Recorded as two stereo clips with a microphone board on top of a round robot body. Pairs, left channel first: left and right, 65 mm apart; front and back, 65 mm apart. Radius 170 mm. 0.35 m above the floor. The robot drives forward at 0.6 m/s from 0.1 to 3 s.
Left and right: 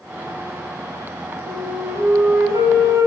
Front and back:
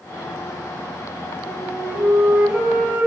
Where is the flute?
95° right, 4.5 m; by 3.1 s 110° right, 4.5 m.